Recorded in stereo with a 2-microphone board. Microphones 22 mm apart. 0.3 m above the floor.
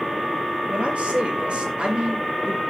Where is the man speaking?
65° right (ahead or behind), 5 m; by 2.6 s 40° right (ahead or behind), 3 m.